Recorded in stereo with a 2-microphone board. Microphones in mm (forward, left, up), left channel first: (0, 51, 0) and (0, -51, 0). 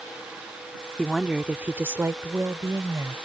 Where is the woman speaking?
5° left (ahead or behind); by 3.1 s 35° right (ahead or behind).